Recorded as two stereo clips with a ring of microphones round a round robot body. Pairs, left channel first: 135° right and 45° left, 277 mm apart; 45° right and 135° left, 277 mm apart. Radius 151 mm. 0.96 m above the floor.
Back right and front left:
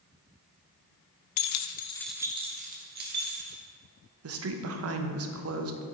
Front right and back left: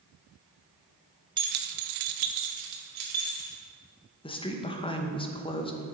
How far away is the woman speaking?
About 0.9 m.